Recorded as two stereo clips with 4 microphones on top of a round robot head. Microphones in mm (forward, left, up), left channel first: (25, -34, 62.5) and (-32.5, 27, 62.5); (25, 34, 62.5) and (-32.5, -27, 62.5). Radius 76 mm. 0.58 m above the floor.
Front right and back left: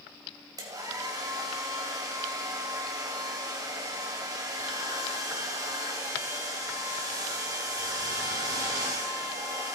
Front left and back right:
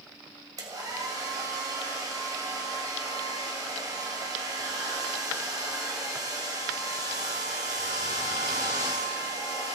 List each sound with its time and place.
0.6 s a hair dryer: straight behind, 2.5 m